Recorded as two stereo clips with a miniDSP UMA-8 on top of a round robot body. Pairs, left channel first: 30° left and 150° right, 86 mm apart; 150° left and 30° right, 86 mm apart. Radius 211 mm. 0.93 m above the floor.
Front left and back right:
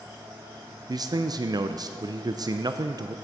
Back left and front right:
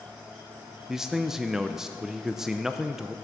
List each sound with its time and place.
0.9 s a man speaking: 115° right, 0.5 m